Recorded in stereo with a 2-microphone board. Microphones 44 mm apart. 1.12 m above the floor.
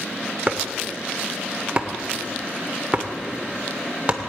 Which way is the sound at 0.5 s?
30° right (ahead or behind).